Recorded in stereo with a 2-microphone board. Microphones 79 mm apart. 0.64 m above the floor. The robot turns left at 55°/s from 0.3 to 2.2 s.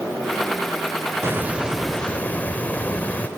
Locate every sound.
1.2 s a hiss: 145° right, 0.9 m; by 3.3 s 160° left, 0.9 m